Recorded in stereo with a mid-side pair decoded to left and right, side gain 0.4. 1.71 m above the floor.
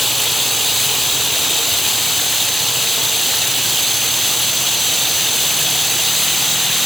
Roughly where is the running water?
Ahead.